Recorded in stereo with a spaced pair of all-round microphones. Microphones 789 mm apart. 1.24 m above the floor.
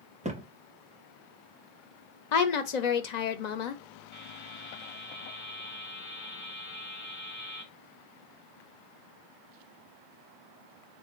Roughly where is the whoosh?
I don't hear a whoosh.